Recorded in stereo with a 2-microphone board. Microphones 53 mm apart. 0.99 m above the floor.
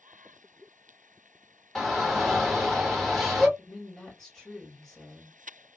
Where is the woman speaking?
10° left (ahead or behind), 1.5 m.